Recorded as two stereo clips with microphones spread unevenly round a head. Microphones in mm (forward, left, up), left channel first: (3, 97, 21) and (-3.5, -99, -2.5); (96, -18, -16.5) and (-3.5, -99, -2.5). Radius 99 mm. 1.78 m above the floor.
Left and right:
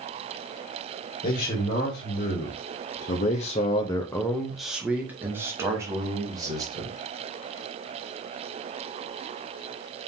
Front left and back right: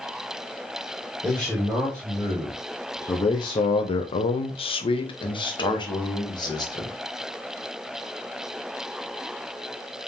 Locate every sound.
1.2 s a man speaking: 135° left, 1.4 m; by 7.0 s 20° right, 1.8 m